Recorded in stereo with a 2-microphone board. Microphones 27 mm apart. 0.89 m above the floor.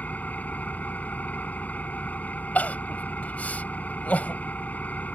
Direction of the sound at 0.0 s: 80° left.